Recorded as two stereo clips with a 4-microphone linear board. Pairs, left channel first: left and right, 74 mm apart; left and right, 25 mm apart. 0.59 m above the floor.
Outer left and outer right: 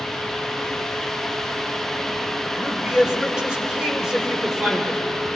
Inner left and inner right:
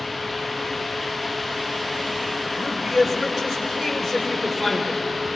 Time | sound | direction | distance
2.6 | a man speaking | 10° right (ahead or behind) | 2.5 m